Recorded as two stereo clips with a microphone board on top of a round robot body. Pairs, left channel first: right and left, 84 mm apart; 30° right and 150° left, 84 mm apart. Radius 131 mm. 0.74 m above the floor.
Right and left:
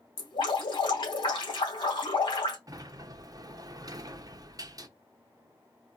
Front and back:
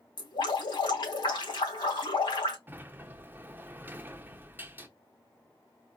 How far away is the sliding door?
About 0.9 m.